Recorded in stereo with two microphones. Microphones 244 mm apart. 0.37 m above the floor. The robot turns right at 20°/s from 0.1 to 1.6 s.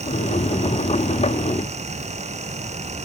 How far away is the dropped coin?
No dropped coin in this recording.